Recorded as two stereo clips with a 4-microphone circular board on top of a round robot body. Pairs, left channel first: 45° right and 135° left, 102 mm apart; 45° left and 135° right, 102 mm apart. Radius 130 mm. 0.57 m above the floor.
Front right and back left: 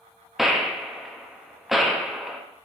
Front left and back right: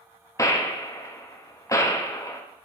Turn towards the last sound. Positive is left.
turn(degrees=50)